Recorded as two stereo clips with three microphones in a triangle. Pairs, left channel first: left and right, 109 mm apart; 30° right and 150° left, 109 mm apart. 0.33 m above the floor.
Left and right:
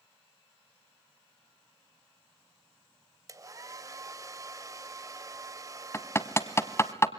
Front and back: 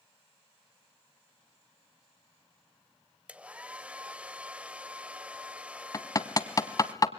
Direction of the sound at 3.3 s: 135° right.